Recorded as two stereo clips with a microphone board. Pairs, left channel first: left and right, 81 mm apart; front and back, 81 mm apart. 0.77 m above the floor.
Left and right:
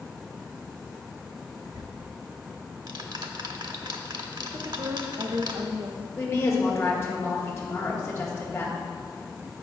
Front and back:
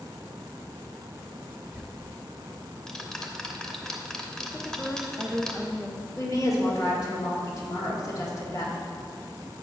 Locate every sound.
1.7 s ticking: 80° right, 0.8 m
4.5 s a woman speaking: 95° right, 0.9 m
6.2 s a woman speaking: 35° left, 1.9 m